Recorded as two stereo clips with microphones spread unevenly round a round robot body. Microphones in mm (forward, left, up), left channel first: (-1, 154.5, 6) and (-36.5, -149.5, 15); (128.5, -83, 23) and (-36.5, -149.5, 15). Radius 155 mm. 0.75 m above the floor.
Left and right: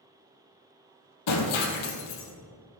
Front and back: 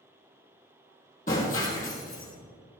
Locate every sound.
1.3 s breaking glass: 90° left, 3 m